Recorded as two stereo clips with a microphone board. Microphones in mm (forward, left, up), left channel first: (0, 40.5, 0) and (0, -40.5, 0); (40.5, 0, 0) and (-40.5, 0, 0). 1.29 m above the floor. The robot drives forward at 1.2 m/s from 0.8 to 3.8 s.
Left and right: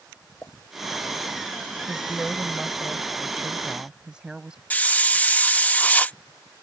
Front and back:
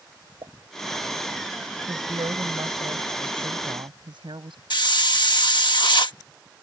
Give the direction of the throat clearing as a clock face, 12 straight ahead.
I don't hear throat clearing.